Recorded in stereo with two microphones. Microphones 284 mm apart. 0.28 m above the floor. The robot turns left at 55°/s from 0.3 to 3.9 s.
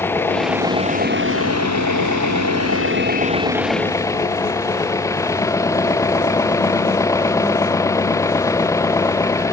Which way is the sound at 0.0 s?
10° left.